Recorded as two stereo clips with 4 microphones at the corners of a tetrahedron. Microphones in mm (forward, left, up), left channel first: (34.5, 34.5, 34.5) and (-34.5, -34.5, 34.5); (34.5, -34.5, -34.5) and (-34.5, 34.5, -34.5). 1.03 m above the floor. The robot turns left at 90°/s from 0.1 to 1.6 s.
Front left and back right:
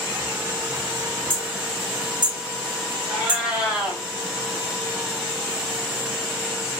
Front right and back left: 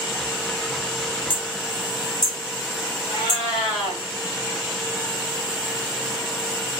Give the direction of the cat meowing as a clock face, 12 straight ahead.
2 o'clock.